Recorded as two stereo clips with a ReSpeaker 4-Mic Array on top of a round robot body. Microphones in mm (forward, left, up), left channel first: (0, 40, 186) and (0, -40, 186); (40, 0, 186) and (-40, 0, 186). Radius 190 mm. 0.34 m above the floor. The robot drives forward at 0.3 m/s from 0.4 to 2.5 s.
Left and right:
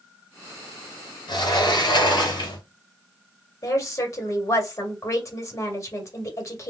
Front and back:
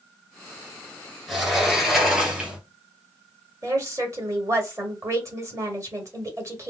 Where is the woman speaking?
135° left, 1.8 m.